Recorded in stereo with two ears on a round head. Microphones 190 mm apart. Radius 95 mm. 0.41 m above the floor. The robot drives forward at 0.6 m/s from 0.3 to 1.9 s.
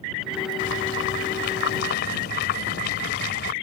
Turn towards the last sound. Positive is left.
turn(degrees=50)  # may be behind; listen again after turning